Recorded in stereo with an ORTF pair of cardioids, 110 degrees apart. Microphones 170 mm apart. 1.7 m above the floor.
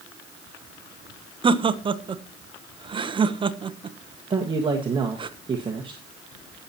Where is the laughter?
30° right, 1.0 m.